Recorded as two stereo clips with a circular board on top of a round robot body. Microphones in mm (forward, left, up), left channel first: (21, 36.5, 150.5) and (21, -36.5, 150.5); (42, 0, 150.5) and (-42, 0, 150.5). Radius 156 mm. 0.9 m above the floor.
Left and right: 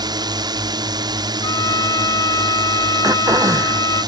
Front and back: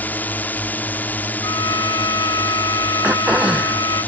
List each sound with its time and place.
0.0 s a drone: 70° right
1.4 s a trumpet: 50° left
3.0 s throat clearing: 105° right